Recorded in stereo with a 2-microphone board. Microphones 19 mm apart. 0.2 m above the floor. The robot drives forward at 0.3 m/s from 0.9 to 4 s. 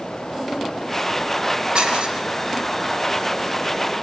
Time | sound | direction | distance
1.8 | dishes clattering | 55° right (ahead or behind) | 2.5 m